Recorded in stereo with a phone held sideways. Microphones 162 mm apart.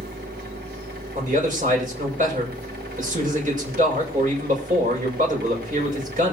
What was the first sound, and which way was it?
A machine running, 85° right.